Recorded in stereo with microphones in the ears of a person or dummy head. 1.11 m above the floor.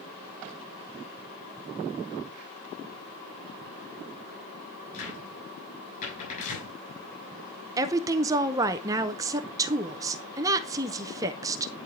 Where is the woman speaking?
15° right (ahead or behind), 0.6 m.